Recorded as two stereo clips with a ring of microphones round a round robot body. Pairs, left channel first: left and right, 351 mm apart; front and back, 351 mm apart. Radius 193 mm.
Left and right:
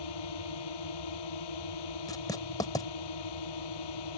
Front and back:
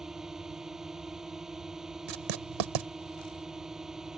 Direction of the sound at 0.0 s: 90° left.